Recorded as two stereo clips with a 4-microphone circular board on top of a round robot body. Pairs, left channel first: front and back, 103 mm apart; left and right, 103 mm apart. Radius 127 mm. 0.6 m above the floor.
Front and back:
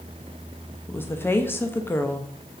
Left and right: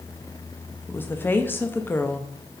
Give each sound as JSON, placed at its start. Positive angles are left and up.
{"t": 0.9, "sound": "a woman speaking", "azimuth_deg": 45, "distance_m": 0.9}